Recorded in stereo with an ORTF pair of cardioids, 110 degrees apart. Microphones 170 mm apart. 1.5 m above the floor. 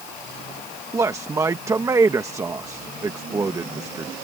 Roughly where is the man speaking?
Ahead.